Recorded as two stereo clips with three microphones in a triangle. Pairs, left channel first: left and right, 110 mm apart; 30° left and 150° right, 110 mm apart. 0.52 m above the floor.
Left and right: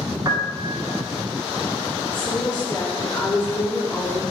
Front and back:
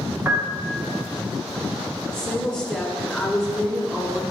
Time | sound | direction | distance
0.2 | a piano | 95° right | 0.8 m
2.1 | a woman speaking | 120° left | 1.5 m